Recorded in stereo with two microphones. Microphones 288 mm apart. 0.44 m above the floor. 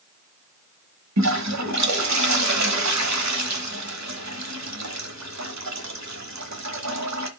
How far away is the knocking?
No knocking in this recording.